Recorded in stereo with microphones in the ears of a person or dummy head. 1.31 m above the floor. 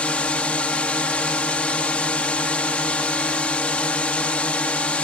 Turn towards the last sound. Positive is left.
turn(degrees=5)  # may be behind; listen again after turning